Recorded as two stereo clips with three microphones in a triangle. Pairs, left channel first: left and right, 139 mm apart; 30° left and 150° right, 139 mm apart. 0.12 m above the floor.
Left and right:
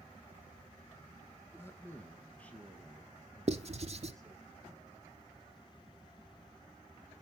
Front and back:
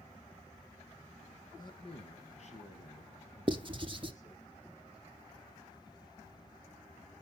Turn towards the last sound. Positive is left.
turn(degrees=-110)